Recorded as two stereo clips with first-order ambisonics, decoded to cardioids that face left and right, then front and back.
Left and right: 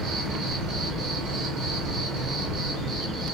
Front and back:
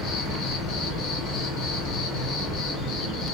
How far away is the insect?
About 1.2 m.